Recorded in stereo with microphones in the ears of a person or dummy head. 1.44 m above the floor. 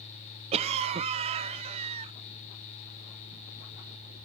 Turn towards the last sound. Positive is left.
turn(degrees=-35)  # may be behind; listen again after turning